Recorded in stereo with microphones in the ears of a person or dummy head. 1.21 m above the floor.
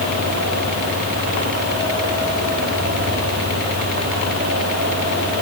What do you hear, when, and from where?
Only background noise.